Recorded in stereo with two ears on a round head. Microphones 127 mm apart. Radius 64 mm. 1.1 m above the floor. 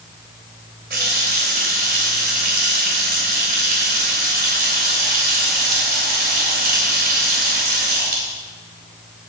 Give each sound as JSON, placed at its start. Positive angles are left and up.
{"t": 0.9, "sound": "a running tap", "side_deg": -80, "distance_m": 3.0}